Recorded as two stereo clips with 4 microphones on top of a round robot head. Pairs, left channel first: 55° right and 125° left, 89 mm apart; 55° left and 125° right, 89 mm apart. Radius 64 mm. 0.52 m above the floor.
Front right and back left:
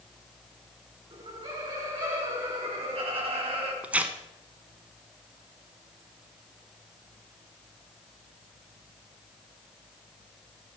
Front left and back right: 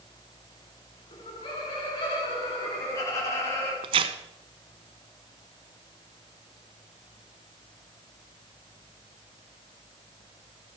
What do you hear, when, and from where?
1.1 s laughter: 90° left, 5.5 m; by 3.7 s 115° left, 5 m
3.8 s tearing paper: 160° right, 1.0 m